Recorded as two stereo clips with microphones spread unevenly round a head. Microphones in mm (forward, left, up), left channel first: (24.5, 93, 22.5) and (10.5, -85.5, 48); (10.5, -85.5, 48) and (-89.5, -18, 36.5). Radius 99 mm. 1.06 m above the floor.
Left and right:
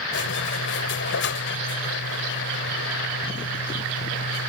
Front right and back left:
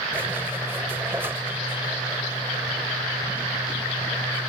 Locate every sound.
0.1 s a squeak: 65° left